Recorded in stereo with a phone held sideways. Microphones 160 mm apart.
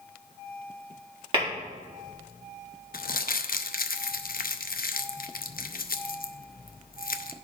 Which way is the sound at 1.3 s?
35° right (ahead or behind).